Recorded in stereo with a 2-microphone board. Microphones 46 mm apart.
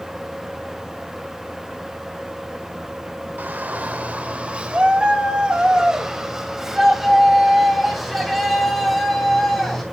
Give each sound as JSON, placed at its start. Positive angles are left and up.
{"t": 3.4, "sound": "a shout", "side_deg": -45, "distance_m": 1.9}